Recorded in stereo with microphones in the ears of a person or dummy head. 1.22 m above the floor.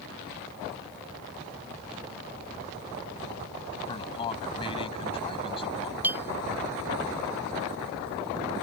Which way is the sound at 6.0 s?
10° right (ahead or behind).